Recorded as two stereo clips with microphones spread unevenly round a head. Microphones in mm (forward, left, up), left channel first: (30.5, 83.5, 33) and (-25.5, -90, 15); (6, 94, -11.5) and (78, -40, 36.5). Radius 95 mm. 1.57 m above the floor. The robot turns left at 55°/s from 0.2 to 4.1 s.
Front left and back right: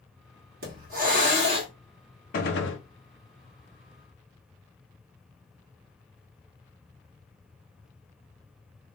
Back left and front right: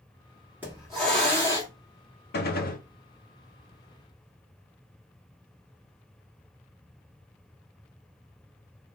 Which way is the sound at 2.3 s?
115° left.